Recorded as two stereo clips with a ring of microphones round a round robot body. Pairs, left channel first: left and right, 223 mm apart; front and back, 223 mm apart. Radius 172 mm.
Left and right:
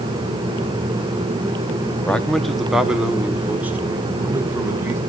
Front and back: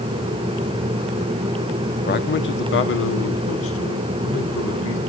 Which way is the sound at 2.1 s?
5° left.